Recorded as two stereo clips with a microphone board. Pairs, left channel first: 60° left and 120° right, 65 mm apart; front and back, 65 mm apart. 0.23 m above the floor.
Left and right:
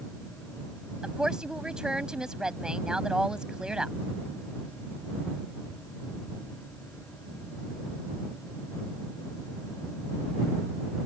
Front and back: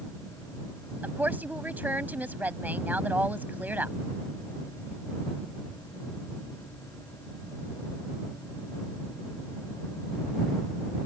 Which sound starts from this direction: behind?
A woman speaking, at 1.0 s.